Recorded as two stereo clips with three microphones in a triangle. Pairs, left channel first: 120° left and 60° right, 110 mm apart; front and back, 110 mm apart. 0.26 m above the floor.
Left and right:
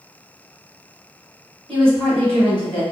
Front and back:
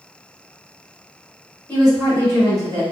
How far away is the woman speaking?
About 1.7 m.